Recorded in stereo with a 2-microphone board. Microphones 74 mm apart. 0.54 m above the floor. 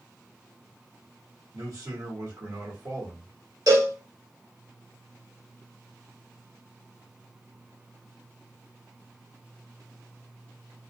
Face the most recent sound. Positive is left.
turn(degrees=-60)  # may be behind; listen again after turning